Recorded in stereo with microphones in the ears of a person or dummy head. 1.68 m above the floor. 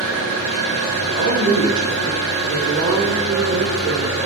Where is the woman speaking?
70° right (ahead or behind), 0.8 m.